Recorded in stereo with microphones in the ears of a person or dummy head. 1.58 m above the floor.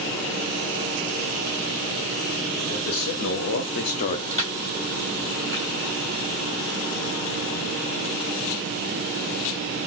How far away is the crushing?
About 4 m.